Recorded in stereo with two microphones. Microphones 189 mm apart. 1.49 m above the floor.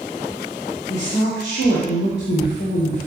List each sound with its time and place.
0.9 s a woman speaking: 65° left (ahead or behind), 1.3 m